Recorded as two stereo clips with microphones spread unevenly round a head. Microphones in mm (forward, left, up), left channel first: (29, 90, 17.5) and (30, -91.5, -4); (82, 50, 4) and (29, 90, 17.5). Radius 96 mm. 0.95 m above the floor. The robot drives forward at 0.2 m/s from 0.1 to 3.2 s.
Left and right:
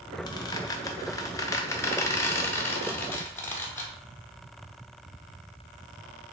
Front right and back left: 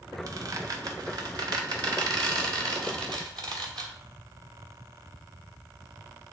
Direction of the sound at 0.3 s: 155° left.